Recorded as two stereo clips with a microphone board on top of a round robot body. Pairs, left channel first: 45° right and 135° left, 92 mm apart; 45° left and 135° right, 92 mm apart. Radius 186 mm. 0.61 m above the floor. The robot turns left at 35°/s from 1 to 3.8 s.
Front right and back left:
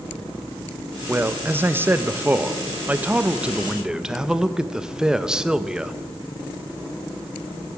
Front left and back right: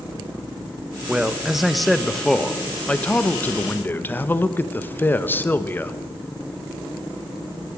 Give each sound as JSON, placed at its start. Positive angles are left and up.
{"t": 1.1, "sound": "a man speaking", "azimuth_deg": 160, "distance_m": 0.9}